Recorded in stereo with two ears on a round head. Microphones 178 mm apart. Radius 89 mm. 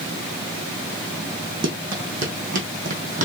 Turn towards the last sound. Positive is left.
turn(degrees=-40)  # may be behind; listen again after turning